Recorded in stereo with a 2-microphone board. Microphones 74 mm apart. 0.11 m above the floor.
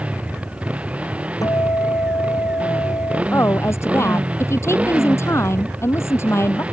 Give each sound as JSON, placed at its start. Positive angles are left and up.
{"t": 0.0, "sound": "a motorcycle", "side_deg": -15}
{"t": 1.4, "sound": "a guitar", "side_deg": 55}
{"t": 3.3, "sound": "a woman speaking", "side_deg": 40}